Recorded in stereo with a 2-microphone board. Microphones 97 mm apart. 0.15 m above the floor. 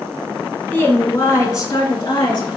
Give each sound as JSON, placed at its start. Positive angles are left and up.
{"t": 0.7, "sound": "a woman speaking", "side_deg": 20, "distance_m": 1.1}